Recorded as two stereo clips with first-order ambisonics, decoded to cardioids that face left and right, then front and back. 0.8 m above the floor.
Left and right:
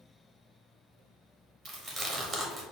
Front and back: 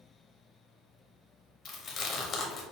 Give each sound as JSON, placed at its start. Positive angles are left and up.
{"t": 1.6, "sound": "chewing", "azimuth_deg": -20, "distance_m": 0.9}